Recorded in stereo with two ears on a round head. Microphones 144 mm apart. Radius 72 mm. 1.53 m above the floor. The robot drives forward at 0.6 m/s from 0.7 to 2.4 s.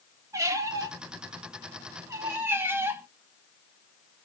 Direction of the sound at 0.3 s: 20° right (ahead or behind).